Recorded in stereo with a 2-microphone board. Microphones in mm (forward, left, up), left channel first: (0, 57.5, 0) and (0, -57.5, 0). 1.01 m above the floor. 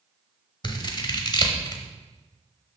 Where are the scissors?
40° left (ahead or behind), 1.1 m.